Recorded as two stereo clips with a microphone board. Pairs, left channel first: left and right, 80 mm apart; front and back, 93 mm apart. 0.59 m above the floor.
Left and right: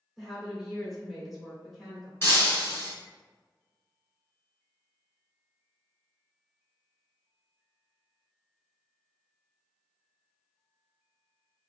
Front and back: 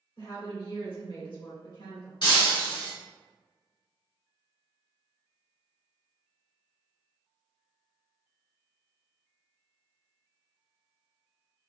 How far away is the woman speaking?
About 1.9 m.